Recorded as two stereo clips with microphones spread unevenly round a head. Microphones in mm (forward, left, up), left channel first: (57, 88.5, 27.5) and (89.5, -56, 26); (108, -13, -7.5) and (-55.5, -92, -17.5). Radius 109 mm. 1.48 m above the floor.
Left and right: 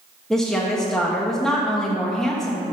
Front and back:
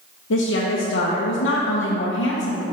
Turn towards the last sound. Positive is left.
turn(degrees=15)